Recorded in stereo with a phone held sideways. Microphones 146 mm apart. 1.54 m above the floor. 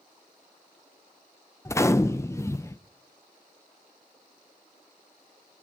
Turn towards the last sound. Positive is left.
turn(degrees=20)  # may be behind; listen again after turning